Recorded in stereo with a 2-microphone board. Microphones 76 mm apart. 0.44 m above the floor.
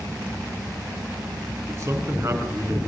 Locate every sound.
1.7 s a man speaking: 45° right (ahead or behind), 5 m